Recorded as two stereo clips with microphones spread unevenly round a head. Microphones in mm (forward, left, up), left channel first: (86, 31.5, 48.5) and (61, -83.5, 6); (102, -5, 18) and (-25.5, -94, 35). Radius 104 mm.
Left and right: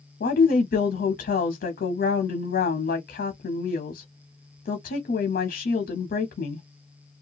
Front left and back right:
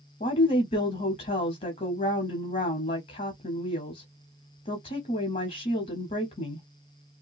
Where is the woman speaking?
90° left, 0.6 m.